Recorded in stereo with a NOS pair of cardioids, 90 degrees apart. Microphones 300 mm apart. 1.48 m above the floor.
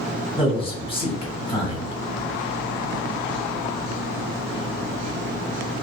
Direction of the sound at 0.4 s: 20° left.